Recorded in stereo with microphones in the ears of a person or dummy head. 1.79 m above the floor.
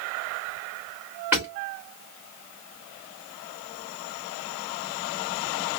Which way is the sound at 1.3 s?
5° right (ahead or behind).